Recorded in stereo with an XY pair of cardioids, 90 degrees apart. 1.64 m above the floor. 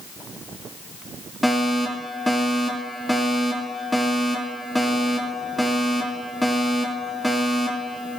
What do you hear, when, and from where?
1.4 s a fire alarm: 5° left, 7.5 m